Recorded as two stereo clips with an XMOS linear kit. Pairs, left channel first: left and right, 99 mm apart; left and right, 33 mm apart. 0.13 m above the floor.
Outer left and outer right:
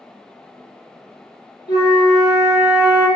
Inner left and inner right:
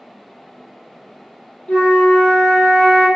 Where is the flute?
40° left (ahead or behind), 1.5 m.